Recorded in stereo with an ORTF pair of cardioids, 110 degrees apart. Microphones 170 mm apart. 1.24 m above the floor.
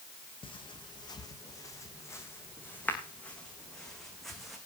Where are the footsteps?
30° left, 4 m; by 4.6 s straight ahead, 5.5 m.